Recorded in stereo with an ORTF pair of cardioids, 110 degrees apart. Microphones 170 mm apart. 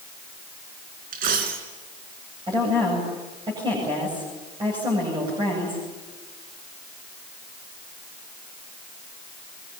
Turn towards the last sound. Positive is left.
turn(degrees=-25)